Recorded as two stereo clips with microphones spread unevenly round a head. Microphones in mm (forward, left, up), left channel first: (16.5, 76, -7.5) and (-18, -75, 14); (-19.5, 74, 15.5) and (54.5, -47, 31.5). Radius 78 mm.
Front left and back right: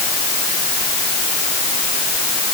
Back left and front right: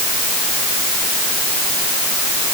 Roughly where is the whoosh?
I don't hear a whoosh.